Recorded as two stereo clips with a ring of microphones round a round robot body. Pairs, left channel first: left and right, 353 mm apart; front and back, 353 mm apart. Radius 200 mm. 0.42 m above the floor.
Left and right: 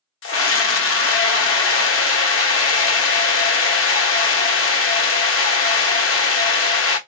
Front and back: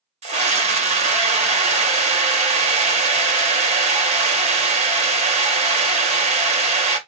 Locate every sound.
0.2 s a scream: 115° left, 0.9 m